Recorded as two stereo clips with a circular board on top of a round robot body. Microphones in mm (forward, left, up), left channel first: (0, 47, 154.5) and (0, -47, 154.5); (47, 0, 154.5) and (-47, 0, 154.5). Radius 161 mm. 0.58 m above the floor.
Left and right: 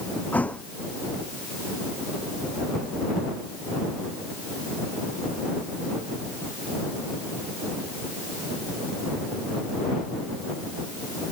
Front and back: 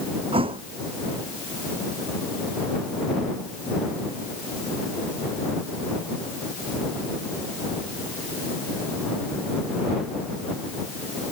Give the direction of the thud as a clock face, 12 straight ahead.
6 o'clock.